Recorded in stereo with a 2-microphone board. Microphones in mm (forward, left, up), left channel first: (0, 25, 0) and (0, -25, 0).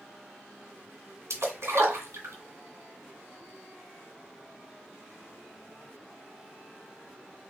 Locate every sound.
1.3 s a splash: 60° right (ahead or behind), 1.7 m